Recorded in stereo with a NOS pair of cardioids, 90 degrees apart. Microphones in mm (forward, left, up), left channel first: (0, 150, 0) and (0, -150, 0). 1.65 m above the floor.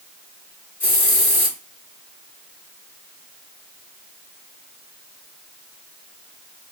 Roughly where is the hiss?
Ahead left.